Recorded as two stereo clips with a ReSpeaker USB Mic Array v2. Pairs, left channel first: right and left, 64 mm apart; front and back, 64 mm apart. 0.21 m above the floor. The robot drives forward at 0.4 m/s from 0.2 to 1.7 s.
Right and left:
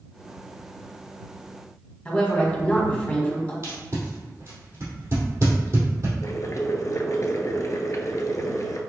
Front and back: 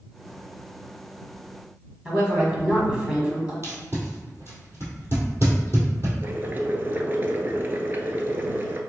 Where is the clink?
No clink in this recording.